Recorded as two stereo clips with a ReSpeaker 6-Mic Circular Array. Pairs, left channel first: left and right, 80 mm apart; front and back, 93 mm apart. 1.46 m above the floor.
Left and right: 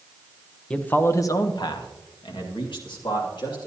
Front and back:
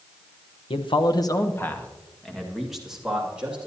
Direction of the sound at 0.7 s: 15° left.